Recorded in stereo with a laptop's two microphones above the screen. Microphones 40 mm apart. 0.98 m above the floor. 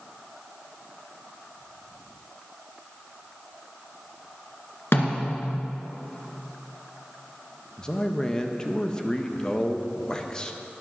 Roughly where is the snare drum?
Left.